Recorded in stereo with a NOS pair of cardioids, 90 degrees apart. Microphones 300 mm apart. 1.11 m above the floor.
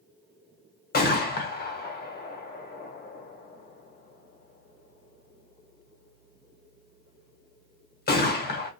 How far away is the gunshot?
About 0.9 m.